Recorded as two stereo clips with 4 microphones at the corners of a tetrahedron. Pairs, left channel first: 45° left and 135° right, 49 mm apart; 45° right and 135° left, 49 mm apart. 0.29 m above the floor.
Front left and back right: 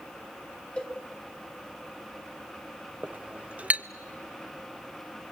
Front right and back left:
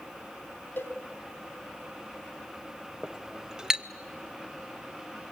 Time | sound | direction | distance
0.8 | a cowbell | 15° right | 2 m
3.0 | a clink | 165° right | 0.6 m